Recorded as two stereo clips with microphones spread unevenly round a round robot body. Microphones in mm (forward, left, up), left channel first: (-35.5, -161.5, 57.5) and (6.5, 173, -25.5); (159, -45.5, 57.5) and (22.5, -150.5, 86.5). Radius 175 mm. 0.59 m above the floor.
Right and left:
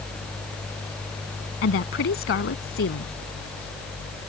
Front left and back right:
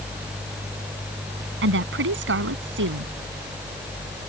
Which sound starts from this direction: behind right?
A woman speaking, at 1.6 s.